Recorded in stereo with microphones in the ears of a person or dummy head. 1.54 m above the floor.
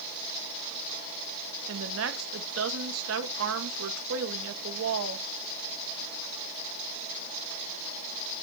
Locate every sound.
1.7 s a woman speaking: 75° right (ahead or behind), 1.6 m